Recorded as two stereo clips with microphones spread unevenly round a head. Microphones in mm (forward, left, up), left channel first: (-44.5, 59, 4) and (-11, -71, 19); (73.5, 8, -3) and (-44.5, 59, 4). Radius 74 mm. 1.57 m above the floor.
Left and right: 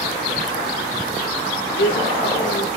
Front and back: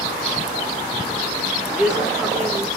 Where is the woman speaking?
70° left, 4 m.